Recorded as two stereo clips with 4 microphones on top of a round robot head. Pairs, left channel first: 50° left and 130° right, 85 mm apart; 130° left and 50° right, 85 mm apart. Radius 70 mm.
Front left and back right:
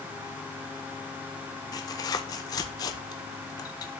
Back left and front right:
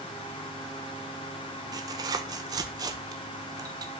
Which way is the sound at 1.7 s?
Straight ahead.